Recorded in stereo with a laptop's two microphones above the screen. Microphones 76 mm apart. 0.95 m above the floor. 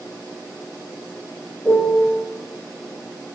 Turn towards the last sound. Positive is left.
turn(degrees=25)  # may be behind; listen again after turning